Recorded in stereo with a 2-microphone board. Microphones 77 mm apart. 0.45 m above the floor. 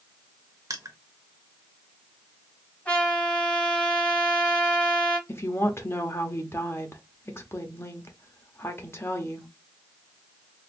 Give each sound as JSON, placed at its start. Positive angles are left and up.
{"t": 0.7, "sound": "crushing", "side_deg": -50, "distance_m": 0.8}
{"t": 2.9, "sound": "a trumpet", "side_deg": 15, "distance_m": 1.6}
{"t": 5.3, "sound": "a woman speaking", "side_deg": 30, "distance_m": 0.8}